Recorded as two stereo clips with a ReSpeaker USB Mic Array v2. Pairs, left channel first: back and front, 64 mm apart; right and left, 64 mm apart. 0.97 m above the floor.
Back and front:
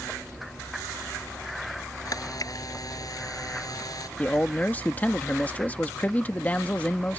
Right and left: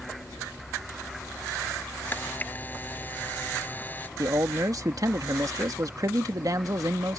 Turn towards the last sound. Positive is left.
turn(degrees=115)